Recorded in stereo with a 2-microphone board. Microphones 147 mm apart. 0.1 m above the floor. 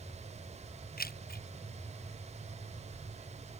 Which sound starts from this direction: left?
Keys jangling, at 1.0 s.